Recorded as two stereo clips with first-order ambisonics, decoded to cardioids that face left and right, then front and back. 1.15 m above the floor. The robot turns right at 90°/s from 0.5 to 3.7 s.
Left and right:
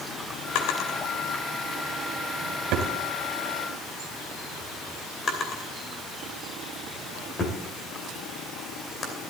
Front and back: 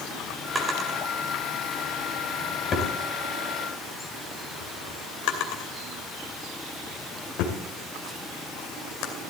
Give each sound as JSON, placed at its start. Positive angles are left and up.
{"t": 0.6, "sound": "a drawer", "azimuth_deg": 100, "distance_m": 2.5}